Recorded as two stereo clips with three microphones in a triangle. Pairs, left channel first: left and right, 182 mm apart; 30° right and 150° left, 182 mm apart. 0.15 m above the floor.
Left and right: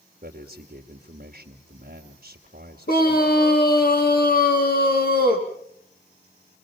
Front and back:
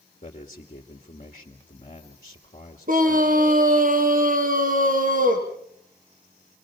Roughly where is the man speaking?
Right.